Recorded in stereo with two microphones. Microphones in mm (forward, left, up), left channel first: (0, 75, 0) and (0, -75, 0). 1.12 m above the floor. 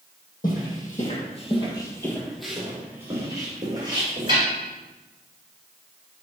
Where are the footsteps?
65° left (ahead or behind), 2.5 m; by 4.4 s 35° right (ahead or behind), 4 m.